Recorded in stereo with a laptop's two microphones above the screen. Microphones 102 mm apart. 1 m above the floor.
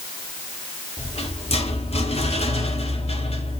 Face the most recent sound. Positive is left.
turn(degrees=80)